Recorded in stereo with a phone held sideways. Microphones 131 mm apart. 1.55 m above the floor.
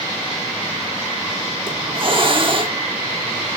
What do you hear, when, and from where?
1.7 s a hiss: 40° right (ahead or behind), 1.4 m